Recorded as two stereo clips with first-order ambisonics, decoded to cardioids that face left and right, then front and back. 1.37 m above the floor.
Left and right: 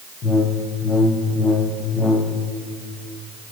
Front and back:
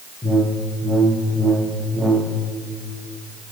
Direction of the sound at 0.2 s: 95° left.